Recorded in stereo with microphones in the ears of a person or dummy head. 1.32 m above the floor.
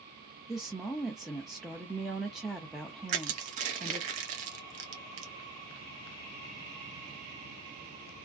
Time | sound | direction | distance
0.5 | a woman speaking | centre (ahead or behind) | 0.5 m
3.1 | crushing | 35° right (ahead or behind) | 0.6 m